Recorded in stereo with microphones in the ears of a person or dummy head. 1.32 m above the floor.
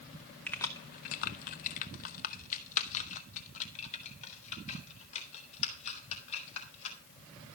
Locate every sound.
0.5 s keys jangling: 5° left (ahead or behind), 0.5 m; by 7.0 s 35° left (ahead or behind), 4 m